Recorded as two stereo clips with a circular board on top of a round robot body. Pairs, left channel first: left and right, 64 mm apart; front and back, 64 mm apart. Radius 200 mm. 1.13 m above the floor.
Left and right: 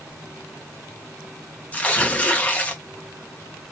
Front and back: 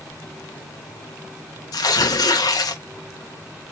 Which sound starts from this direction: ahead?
Tearing paper, at 1.7 s.